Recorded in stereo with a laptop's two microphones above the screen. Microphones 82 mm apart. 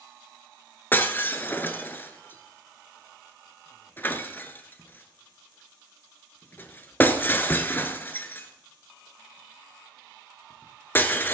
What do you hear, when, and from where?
0.9 s breaking glass: 25° left (ahead or behind), 1.0 m